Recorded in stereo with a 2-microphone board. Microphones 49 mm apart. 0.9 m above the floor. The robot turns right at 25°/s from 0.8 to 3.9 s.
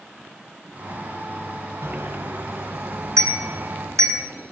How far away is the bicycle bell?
About 4.5 m.